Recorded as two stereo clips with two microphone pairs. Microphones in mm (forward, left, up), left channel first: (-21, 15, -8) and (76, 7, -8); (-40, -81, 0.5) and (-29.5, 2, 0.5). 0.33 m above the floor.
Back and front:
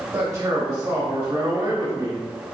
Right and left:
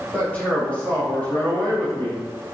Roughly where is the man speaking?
Ahead right.